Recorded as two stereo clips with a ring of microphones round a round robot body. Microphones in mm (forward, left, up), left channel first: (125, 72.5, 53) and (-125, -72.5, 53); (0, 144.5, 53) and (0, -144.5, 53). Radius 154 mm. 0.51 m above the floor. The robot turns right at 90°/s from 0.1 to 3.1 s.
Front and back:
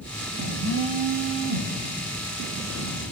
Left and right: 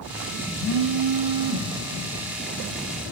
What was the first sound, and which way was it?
A phone buzzing, 170° right.